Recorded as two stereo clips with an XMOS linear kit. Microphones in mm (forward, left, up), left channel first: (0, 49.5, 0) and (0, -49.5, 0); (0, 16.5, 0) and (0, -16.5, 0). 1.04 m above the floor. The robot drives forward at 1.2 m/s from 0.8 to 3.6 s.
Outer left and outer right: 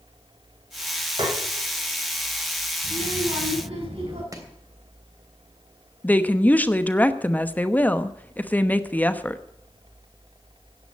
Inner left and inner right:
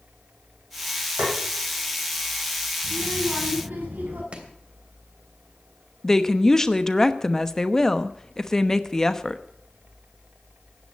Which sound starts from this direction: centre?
A woman speaking, at 6.0 s.